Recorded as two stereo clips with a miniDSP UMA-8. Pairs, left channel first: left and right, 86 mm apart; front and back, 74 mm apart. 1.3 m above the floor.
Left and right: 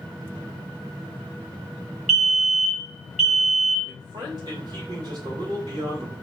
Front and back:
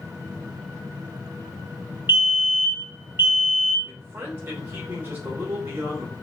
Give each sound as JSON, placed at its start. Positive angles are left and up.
{"t": 2.1, "sound": "a fire alarm", "azimuth_deg": 175, "distance_m": 1.1}
{"t": 3.9, "sound": "a man speaking", "azimuth_deg": -120, "distance_m": 2.5}